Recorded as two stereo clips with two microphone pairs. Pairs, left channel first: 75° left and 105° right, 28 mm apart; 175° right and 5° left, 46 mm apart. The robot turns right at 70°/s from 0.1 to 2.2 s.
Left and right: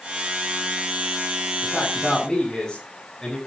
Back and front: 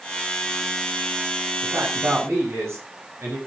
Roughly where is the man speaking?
Ahead right.